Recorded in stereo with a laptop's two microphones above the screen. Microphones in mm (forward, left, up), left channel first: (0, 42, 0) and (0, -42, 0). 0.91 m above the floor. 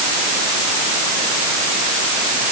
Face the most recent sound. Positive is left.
No sound to turn to.